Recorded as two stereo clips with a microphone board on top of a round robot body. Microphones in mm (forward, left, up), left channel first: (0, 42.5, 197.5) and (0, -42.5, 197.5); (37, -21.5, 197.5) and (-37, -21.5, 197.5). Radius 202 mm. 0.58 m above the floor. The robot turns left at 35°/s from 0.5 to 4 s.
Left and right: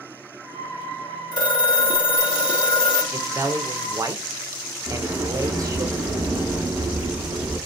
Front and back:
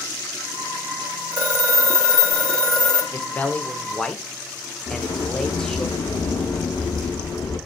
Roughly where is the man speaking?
Ahead right.